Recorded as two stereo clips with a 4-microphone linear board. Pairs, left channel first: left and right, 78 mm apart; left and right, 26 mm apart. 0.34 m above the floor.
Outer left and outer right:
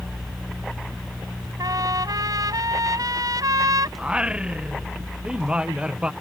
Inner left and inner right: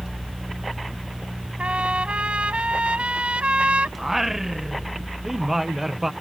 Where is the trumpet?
55° right (ahead or behind).